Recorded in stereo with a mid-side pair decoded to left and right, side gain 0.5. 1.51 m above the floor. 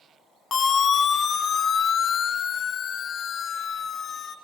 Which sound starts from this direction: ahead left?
A siren, at 0.5 s.